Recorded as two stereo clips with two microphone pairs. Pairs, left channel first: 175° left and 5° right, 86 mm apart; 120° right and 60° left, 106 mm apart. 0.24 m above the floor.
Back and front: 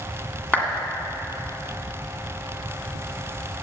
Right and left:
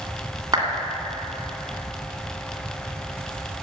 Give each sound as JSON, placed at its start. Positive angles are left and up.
{"t": 0.5, "sound": "a clap", "azimuth_deg": 105, "distance_m": 1.8}